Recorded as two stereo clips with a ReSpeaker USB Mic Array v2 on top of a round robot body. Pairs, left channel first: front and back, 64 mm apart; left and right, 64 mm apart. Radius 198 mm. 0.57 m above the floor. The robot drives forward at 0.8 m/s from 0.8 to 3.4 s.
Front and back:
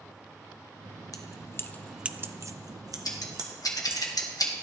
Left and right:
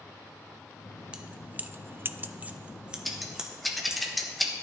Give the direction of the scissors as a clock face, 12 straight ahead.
12 o'clock.